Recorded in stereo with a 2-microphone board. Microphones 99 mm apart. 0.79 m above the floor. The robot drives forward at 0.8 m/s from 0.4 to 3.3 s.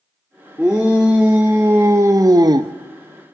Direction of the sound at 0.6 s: 10° right (ahead or behind).